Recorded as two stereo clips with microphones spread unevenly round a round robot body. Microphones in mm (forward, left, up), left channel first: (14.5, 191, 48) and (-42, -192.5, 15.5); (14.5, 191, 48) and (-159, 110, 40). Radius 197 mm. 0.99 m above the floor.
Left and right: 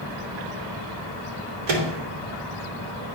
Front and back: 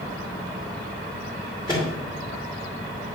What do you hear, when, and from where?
1.7 s a microwave: 75° right, 2.5 m